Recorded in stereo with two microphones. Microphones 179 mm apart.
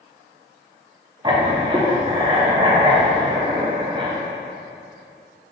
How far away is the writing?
About 0.6 m.